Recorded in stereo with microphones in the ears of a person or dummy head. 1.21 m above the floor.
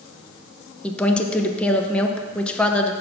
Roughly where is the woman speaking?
Centre.